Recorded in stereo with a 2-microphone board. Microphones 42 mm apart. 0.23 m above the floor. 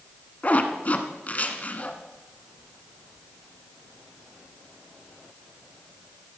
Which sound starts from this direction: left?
A zipper, at 0.4 s.